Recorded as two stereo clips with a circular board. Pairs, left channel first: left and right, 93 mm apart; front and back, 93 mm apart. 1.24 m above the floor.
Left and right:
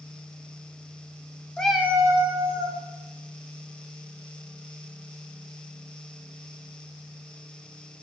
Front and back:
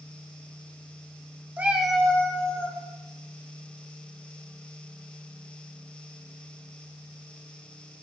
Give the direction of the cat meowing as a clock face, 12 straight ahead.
7 o'clock.